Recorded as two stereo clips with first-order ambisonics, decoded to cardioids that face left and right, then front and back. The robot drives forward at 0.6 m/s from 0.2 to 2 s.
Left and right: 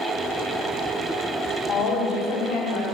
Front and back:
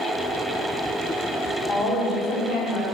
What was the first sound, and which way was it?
A woman speaking, 40° left.